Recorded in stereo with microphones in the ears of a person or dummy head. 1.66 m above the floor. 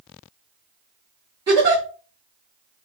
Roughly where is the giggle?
Centre.